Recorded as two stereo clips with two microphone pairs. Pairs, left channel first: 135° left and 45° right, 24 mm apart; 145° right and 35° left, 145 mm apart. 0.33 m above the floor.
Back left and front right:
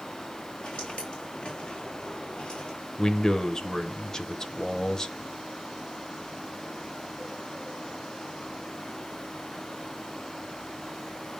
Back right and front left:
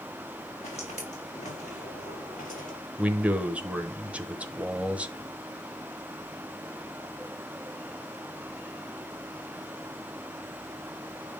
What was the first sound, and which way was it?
Footsteps, 170° left.